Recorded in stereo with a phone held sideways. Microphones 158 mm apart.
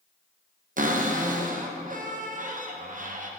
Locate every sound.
0.8 s a cupboard door: 55° right (ahead or behind), 0.7 m